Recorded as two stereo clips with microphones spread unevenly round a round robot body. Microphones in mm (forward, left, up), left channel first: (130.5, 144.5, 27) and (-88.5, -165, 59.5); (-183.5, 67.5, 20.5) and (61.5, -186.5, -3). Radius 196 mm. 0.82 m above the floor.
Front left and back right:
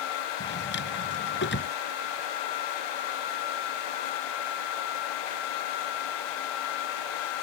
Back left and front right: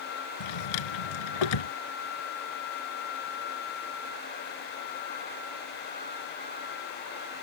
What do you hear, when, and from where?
0.4 s a drawer: 120° left